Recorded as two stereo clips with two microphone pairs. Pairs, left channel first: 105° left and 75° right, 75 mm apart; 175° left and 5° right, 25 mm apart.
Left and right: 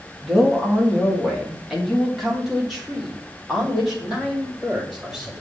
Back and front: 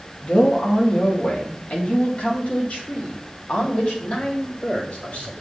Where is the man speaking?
165° right, 2 m.